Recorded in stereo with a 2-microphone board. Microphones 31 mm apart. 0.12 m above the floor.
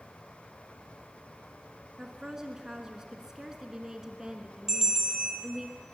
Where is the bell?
15° right (ahead or behind), 1.9 m.